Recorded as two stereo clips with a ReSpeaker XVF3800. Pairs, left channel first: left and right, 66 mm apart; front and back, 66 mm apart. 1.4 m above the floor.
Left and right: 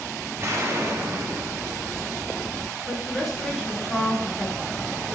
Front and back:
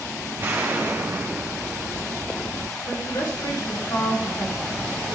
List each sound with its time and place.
0.4 s an explosion: 130° right, 1.4 m
2.9 s a woman speaking: straight ahead, 3.5 m